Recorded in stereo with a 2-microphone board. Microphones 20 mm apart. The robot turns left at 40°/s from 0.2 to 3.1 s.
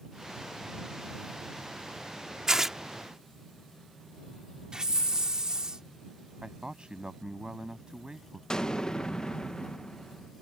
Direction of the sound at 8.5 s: 35° left (ahead or behind).